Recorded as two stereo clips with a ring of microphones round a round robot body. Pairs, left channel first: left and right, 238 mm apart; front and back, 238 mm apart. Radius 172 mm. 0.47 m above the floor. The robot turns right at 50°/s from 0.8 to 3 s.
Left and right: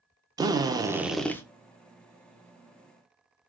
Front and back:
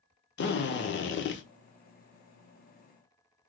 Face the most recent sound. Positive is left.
turn(degrees=90)